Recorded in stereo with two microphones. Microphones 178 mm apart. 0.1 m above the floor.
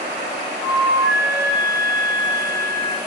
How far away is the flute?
About 2 m.